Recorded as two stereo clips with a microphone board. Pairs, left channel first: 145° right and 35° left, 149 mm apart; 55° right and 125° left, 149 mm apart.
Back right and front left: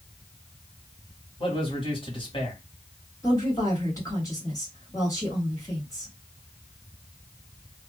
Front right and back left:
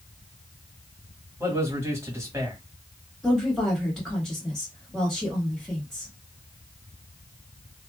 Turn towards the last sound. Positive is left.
turn(degrees=-140)